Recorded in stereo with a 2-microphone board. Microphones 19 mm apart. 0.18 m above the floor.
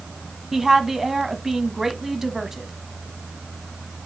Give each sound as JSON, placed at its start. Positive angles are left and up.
{"t": 0.5, "sound": "a woman speaking", "side_deg": -20, "distance_m": 1.1}